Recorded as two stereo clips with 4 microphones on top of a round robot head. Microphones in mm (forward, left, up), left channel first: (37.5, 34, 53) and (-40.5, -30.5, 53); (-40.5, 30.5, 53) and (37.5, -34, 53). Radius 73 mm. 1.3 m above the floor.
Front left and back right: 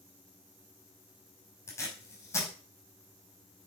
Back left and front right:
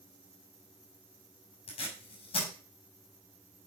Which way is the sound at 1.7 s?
105° left.